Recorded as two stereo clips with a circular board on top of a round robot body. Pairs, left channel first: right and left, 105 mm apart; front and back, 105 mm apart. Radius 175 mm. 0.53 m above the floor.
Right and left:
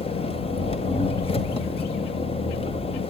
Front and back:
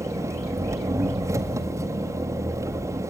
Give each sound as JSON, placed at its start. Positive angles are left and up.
{"t": 0.0, "sound": "an engine running", "azimuth_deg": -120, "distance_m": 1.7}